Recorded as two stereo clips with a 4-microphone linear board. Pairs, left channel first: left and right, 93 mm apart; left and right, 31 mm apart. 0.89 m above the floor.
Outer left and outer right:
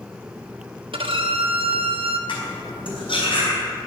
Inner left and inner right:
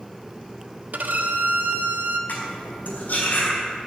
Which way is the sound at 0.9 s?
75° right (ahead or behind).